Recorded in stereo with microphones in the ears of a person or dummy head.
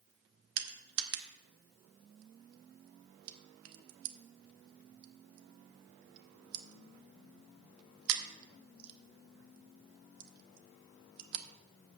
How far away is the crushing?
About 0.9 m.